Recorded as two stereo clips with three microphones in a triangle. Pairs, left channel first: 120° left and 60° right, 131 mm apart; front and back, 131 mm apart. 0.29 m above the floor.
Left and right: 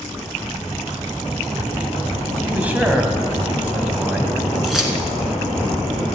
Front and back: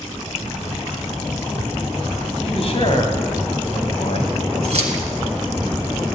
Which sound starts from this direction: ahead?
A man speaking, at 2.4 s.